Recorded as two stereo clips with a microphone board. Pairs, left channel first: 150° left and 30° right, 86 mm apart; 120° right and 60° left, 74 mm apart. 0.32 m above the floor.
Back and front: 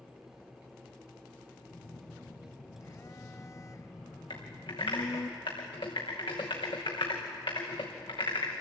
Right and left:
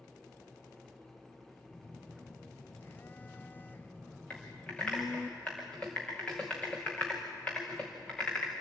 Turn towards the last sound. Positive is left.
turn(degrees=165)